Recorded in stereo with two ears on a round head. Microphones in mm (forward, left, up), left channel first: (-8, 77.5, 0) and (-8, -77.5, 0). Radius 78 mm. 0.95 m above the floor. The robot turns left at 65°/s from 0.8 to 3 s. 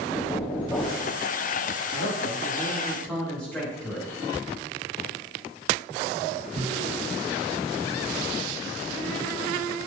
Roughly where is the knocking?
Centre.